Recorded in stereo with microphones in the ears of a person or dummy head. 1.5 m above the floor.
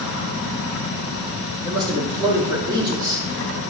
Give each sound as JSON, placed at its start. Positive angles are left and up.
{"t": 1.6, "sound": "a man speaking", "side_deg": -20, "distance_m": 3.0}